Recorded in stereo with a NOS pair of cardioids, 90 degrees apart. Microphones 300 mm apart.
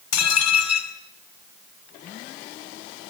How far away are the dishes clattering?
About 6 m.